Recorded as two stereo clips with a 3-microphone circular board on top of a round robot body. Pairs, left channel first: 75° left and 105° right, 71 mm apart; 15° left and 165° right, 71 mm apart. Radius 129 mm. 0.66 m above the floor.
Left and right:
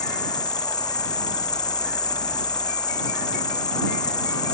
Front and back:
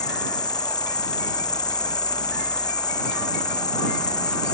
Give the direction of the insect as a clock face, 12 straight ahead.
10 o'clock.